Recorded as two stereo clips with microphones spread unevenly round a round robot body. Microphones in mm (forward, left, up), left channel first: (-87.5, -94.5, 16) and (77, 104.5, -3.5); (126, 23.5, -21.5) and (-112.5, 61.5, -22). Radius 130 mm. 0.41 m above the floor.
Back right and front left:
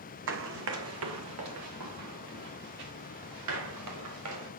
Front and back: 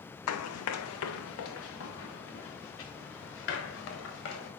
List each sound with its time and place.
0.3 s running footsteps: 5° left, 1.1 m; by 4.5 s 25° left, 5 m